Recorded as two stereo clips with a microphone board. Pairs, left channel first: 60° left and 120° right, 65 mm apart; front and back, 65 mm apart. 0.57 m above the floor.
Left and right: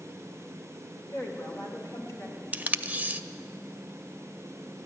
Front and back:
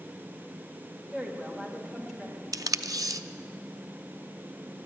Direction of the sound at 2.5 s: 175° left.